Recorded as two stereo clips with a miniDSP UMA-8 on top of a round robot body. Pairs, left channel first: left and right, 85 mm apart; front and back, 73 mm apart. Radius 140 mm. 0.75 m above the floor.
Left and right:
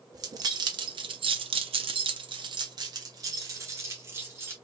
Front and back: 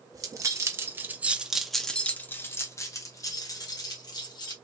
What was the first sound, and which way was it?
Keys jangling, 140° right.